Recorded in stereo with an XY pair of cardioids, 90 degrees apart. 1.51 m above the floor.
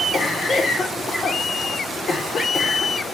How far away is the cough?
About 1.4 m.